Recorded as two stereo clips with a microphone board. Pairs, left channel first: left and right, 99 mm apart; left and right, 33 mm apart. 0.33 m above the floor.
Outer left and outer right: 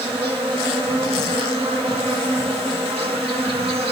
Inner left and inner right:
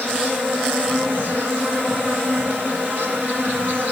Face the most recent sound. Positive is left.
turn(degrees=-65)  # may be behind; listen again after turning